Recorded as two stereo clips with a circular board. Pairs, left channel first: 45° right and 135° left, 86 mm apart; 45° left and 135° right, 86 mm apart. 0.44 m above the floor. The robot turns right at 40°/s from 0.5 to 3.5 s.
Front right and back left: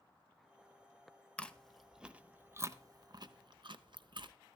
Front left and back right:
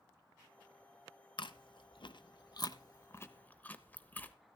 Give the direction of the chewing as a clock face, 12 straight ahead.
11 o'clock.